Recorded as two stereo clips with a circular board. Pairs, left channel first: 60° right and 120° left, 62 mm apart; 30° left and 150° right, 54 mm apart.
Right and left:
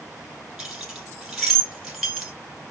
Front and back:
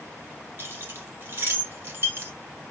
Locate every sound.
0.6 s keys jangling: 160° right, 1.3 m